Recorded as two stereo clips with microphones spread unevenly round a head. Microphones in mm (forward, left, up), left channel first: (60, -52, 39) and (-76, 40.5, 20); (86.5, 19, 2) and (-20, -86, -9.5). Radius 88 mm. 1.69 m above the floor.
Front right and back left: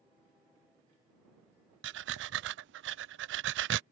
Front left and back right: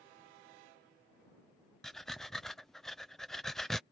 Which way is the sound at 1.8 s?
130° left.